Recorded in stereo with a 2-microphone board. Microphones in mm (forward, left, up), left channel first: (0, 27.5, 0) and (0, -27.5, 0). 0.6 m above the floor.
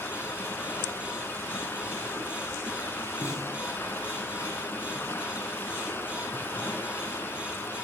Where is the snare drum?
55° left (ahead or behind), 6.5 m.